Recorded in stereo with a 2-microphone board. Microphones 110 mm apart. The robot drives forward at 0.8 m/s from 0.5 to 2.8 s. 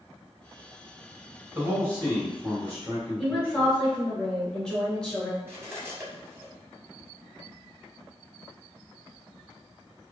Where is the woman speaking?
10° left (ahead or behind), 1.4 m.